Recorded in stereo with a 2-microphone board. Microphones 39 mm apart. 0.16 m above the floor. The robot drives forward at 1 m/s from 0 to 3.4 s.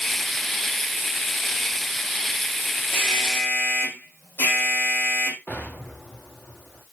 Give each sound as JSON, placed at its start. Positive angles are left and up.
{"t": 2.9, "sound": "an alarm", "side_deg": 65, "distance_m": 7.5}
{"t": 5.5, "sound": "an explosion", "side_deg": 55, "distance_m": 7.5}